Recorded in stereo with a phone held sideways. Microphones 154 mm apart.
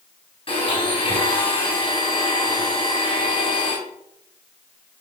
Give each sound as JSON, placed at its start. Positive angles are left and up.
{"t": 0.5, "sound": "a blender", "side_deg": 35, "distance_m": 4.5}